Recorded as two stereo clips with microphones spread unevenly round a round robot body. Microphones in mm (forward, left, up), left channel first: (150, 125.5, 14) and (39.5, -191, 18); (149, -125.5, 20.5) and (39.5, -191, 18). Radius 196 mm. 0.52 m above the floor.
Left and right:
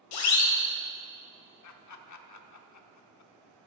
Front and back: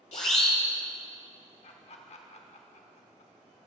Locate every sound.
0.1 s a siren: 85° left, 2 m
1.6 s laughter: 50° left, 1.0 m